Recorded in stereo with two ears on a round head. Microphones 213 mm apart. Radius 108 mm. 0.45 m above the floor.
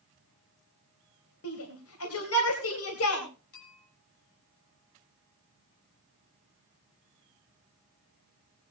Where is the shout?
60° left (ahead or behind), 3 m.